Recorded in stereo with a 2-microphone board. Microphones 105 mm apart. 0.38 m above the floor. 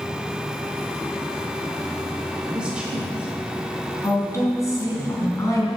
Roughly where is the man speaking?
Centre.